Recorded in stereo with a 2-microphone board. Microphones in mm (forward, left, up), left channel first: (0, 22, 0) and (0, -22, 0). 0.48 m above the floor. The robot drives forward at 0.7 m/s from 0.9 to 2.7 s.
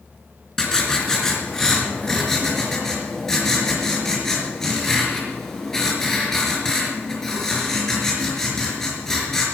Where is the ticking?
I don't hear ticking.